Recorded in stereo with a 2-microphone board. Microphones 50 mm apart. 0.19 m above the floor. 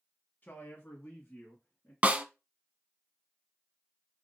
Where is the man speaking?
35° left (ahead or behind), 1.3 m; by 1.9 s 20° left (ahead or behind), 1.9 m.